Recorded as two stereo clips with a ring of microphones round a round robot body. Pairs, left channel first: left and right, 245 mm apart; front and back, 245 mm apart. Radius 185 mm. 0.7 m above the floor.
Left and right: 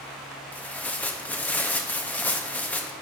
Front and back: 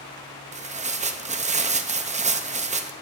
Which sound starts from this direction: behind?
Tearing paper, at 0.5 s.